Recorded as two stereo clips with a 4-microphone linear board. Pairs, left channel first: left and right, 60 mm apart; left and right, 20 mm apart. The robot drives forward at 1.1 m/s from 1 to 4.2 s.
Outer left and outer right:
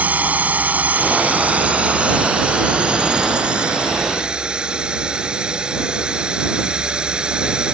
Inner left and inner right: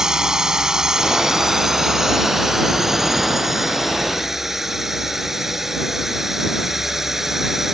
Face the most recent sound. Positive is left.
turn(degrees=-15)  # may be behind; listen again after turning